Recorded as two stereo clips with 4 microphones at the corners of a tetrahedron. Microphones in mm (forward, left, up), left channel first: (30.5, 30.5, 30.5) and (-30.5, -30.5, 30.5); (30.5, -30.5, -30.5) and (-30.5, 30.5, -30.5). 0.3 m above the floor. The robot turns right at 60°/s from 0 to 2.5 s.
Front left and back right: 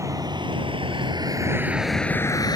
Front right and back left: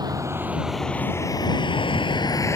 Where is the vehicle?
170° left; by 2.6 s 10° left.